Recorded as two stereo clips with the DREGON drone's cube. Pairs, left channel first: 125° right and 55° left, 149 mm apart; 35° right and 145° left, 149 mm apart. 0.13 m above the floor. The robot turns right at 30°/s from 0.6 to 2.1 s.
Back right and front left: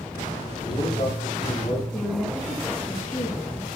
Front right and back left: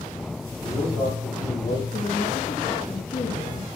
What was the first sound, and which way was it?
A man speaking, 90° right.